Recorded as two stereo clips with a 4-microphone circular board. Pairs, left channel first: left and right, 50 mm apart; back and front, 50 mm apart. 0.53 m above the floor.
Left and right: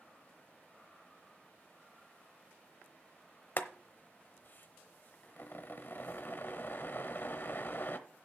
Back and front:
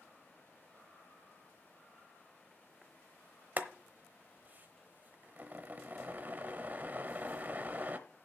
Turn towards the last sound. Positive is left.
turn(degrees=50)